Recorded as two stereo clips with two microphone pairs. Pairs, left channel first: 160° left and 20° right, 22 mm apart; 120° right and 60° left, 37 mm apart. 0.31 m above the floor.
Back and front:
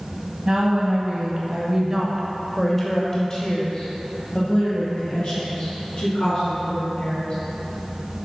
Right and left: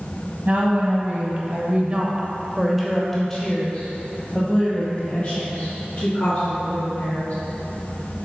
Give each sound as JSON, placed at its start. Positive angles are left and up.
{"t": 0.5, "sound": "a woman speaking", "azimuth_deg": 25, "distance_m": 1.8}